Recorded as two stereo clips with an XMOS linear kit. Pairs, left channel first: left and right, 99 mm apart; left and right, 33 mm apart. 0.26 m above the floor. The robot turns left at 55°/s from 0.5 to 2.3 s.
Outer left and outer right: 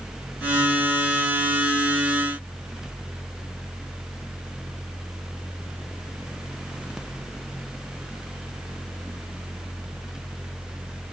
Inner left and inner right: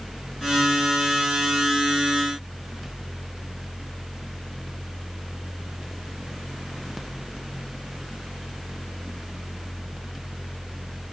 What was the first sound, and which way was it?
Only background noise.